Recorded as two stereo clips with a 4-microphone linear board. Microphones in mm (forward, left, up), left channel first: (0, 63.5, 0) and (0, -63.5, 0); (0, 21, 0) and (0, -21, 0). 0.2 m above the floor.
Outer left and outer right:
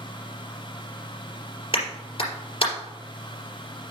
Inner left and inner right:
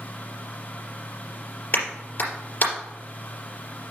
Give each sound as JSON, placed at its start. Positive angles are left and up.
{"t": 1.7, "sound": "a clap", "side_deg": 50, "distance_m": 3.5}